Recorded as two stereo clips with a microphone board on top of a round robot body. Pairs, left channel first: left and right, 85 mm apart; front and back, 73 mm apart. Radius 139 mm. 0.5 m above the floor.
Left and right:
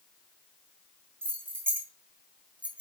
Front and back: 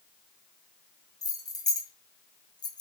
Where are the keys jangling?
30° right, 3 m; by 2.8 s 15° right, 1.5 m.